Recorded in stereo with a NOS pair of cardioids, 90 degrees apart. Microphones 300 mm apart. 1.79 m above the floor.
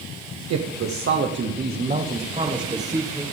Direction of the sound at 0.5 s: 60° right.